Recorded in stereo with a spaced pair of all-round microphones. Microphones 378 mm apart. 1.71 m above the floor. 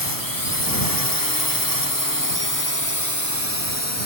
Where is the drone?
60° left (ahead or behind); by 4.1 s 40° left (ahead or behind).